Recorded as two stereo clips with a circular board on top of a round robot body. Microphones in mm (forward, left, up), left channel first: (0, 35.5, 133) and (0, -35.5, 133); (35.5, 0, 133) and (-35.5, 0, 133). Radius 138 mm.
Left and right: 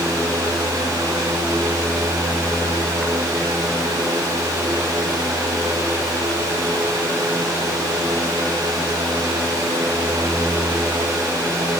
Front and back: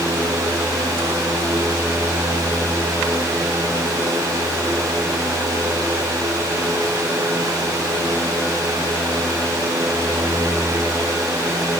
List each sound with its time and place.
Only background noise.